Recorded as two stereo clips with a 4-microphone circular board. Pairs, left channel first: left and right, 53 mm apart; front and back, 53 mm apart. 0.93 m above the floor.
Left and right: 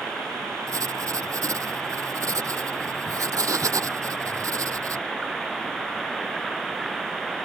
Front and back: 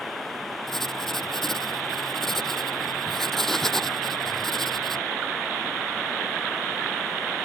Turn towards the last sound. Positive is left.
turn(degrees=-85)